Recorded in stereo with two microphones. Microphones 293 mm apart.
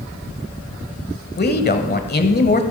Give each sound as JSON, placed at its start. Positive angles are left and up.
{"t": 1.4, "sound": "a man speaking", "side_deg": 35, "distance_m": 1.2}